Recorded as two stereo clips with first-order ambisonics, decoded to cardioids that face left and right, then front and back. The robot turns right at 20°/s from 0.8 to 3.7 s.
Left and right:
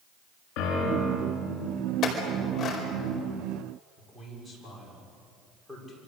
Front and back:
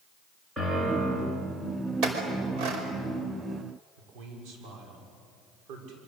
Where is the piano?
105° left, 7.5 m; by 1.3 s 115° left, 7.5 m.